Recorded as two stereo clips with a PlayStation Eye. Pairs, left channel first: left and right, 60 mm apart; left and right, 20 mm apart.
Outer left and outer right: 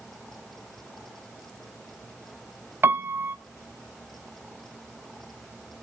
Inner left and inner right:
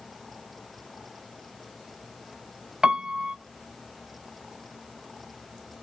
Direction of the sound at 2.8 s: 40° right (ahead or behind).